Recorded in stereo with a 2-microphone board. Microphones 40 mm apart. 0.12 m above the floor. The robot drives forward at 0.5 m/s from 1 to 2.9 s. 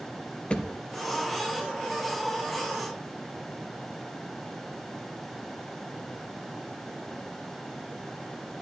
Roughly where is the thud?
Left.